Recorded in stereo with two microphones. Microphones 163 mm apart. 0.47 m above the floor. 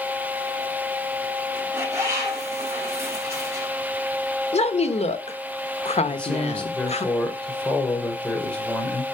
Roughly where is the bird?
Centre.